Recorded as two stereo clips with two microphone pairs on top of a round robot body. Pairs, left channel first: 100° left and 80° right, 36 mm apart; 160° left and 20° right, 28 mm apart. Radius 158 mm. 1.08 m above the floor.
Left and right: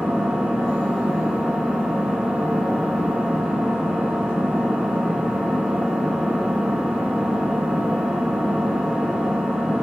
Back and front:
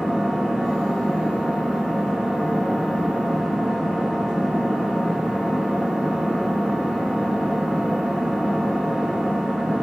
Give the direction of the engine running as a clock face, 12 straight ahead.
4 o'clock.